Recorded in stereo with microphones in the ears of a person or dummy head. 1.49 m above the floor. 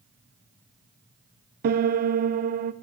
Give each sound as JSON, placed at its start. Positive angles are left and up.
{"t": 1.6, "sound": "a piano", "side_deg": -40, "distance_m": 0.6}